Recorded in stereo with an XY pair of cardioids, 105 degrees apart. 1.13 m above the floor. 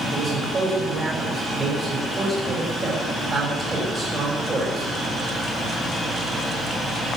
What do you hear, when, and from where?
0.1 s a man speaking: 35° right, 7.5 m